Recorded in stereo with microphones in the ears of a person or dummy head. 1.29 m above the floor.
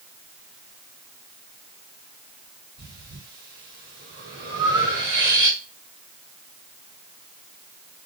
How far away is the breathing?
About 1.4 m.